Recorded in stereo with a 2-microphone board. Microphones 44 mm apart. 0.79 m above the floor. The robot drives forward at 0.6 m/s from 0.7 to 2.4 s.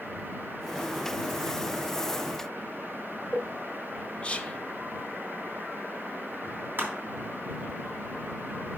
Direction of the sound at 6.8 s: 45° right (ahead or behind).